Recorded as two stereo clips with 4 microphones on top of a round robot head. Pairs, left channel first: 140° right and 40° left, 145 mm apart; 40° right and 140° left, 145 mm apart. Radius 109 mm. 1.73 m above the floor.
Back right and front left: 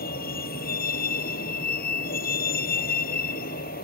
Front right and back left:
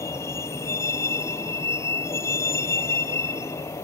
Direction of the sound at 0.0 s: 115° right.